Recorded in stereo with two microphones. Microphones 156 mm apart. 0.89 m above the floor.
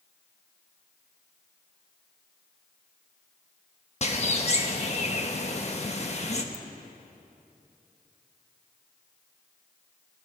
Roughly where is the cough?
I don't hear a cough.